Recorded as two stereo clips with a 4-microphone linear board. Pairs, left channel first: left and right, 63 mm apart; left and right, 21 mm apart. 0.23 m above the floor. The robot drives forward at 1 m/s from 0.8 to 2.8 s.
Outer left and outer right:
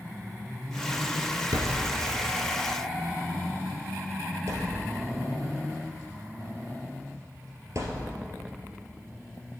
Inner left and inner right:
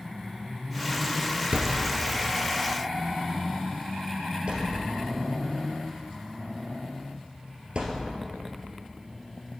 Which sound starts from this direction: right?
A thud, at 1.5 s.